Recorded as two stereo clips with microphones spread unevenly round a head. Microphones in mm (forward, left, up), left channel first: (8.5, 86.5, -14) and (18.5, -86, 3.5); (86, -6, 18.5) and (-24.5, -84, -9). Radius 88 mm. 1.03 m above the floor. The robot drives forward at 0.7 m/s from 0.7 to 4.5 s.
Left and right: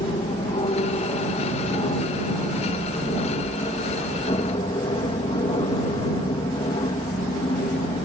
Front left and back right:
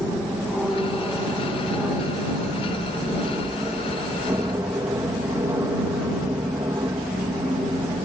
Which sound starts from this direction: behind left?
An aircraft, at 0.0 s.